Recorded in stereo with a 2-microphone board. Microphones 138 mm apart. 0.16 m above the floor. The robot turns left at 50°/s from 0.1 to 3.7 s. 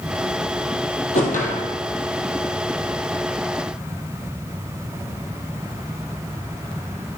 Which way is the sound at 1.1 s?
60° left (ahead or behind).